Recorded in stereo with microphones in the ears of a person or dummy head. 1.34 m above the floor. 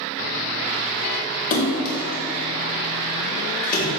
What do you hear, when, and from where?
1.5 s a splash: 50° left (ahead or behind), 2.5 m